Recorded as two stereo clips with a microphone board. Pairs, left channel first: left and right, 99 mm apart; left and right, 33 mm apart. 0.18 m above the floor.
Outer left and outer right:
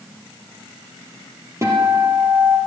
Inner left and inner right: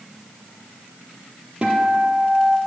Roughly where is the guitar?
Right.